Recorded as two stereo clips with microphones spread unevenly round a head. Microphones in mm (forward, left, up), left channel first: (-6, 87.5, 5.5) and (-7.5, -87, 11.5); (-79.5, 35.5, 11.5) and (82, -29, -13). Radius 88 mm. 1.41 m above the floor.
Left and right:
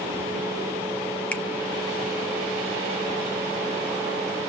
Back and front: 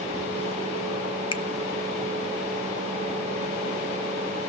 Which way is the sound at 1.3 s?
170° left.